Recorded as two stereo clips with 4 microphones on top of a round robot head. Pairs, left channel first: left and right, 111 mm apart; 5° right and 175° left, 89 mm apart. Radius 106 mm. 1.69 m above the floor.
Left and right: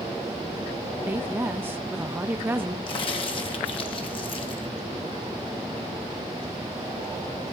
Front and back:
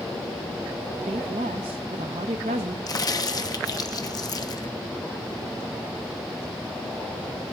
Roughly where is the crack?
Ahead left.